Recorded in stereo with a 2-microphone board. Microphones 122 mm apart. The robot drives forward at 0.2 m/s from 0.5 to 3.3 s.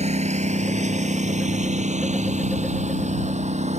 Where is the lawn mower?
65° right (ahead or behind); by 3.8 s 70° right (ahead or behind).